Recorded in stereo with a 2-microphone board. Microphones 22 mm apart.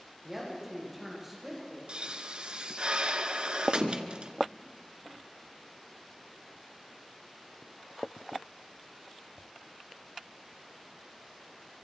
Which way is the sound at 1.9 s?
55° right (ahead or behind).